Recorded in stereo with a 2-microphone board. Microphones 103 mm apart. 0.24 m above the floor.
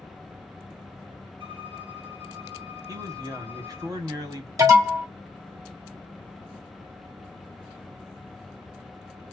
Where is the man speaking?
35° right (ahead or behind), 1.5 m.